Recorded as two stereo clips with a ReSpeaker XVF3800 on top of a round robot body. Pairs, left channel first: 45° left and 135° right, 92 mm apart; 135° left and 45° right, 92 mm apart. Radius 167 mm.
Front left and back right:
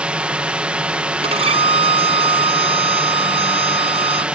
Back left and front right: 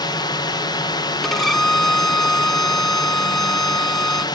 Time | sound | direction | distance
0.0 | a drone | 150° left | ?
1.2 | a violin | 140° right | ?